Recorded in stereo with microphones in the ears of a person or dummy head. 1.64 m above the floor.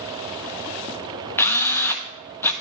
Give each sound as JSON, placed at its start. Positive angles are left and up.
{"t": 1.4, "sound": "a drill", "side_deg": 15, "distance_m": 1.1}